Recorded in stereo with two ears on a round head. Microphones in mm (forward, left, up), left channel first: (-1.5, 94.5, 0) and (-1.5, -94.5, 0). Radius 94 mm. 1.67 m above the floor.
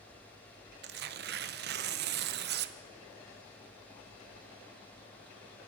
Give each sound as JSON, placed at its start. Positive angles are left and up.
{"t": 0.8, "sound": "tearing paper", "side_deg": -55, "distance_m": 1.0}